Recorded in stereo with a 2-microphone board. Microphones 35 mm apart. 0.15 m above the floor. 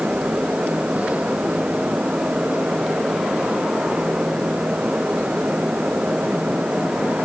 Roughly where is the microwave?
No microwave in this recording.